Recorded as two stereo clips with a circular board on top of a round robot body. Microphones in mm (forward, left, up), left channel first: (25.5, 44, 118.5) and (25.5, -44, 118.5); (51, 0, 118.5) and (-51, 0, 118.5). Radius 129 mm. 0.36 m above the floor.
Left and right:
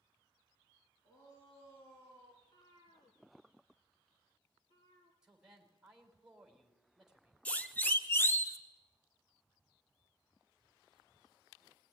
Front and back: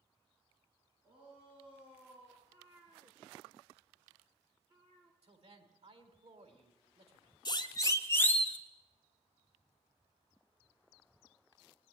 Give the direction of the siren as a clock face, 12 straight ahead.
11 o'clock.